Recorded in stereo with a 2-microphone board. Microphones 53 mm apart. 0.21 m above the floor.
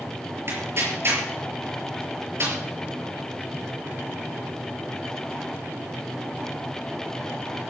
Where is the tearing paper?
50° right (ahead or behind), 5 m.